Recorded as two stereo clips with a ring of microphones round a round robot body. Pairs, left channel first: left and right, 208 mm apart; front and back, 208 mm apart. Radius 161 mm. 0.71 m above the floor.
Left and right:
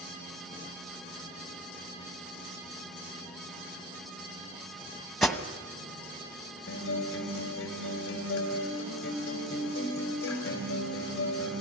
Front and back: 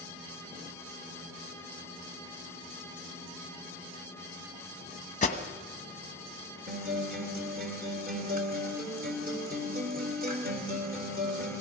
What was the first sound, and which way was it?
An alarm, straight ahead.